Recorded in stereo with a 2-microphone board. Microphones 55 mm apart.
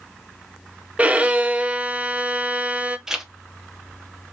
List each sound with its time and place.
1.0 s a violin: 25° right (ahead or behind), 0.5 m
3.1 s a zipper: 5° right (ahead or behind), 0.8 m